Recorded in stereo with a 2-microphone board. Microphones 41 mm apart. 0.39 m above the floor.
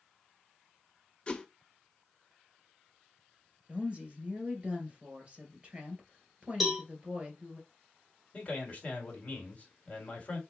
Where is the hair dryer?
No hair dryer in this recording.